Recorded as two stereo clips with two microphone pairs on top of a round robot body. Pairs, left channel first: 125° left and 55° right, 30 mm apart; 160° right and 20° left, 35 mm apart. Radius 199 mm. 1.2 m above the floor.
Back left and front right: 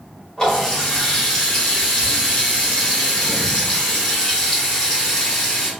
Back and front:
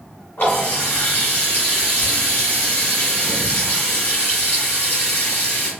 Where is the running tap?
165° right, 1.7 m.